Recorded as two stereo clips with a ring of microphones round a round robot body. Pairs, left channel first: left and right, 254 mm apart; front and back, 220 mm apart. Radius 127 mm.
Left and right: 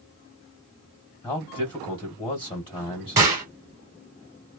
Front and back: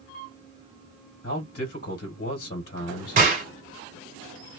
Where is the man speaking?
25° left, 1.5 m.